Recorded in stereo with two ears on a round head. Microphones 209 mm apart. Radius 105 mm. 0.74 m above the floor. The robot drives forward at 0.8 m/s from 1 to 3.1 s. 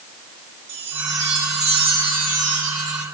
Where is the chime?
50° right (ahead or behind), 1.9 m; by 3.0 s 30° right (ahead or behind), 3 m.